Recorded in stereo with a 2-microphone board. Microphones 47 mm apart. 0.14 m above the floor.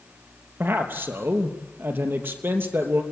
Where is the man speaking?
50° right (ahead or behind), 3 m.